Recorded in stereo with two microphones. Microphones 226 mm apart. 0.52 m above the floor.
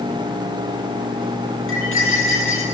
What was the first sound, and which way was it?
Cutlery clinking, 65° left (ahead or behind).